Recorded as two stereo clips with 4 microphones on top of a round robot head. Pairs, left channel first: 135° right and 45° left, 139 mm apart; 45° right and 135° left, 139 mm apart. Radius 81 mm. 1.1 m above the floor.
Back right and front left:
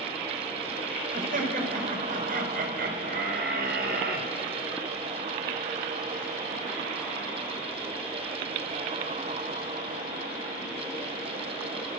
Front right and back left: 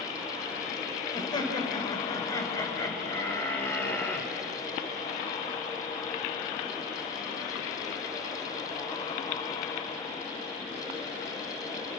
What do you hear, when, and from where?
1.1 s laughter: 15° left, 5 m; by 4.3 s 35° left, 4 m